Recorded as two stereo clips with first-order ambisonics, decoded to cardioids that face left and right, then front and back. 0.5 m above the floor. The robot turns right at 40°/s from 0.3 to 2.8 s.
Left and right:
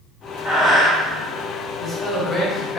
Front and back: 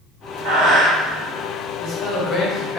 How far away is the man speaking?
About 0.8 m.